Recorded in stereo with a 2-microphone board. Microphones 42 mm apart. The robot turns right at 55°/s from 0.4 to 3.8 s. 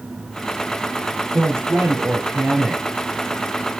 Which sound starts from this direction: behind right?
A woman speaking, at 1.3 s.